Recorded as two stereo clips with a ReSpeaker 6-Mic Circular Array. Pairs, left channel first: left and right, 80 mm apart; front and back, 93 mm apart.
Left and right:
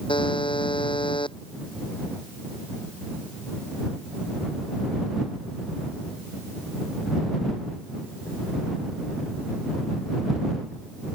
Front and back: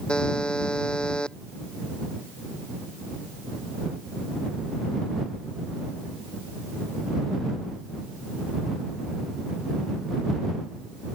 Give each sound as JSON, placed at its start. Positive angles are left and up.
{"t": 0.1, "sound": "a buzzer", "azimuth_deg": 80}